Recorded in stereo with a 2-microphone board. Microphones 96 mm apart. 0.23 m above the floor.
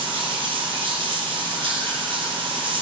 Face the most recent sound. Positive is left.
turn(degrees=-65)  # may be behind; listen again after turning